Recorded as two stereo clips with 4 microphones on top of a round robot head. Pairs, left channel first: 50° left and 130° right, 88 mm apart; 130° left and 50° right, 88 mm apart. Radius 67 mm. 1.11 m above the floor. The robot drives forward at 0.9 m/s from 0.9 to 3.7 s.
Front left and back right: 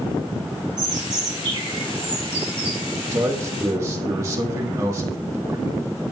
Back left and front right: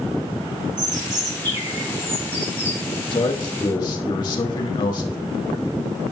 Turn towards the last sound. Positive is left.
turn(degrees=175)